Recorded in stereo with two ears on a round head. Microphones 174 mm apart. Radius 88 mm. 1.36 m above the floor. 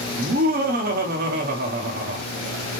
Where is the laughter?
50° right (ahead or behind), 1.0 m.